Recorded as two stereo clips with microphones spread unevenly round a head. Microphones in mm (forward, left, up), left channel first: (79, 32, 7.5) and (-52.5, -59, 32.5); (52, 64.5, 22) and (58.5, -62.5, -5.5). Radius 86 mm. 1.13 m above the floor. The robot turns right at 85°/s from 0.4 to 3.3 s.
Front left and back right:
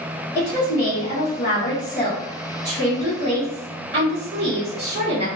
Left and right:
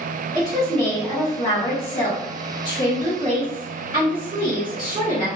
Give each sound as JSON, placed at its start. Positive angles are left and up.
{"t": 0.3, "sound": "a woman speaking", "azimuth_deg": -30, "distance_m": 1.1}